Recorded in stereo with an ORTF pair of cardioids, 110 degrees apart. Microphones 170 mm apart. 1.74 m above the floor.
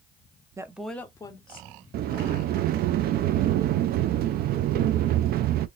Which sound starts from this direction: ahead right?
A sliding door, at 1.9 s.